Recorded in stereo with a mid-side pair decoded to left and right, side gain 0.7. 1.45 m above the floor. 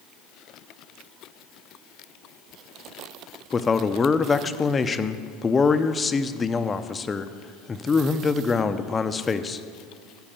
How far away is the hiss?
I don't hear a hiss.